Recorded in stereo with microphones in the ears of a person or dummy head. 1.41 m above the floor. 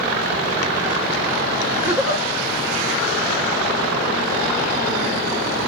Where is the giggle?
10° right (ahead or behind), 0.8 m.